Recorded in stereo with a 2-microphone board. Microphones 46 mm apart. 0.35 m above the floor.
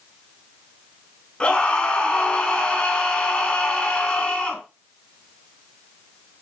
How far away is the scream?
About 4.5 m.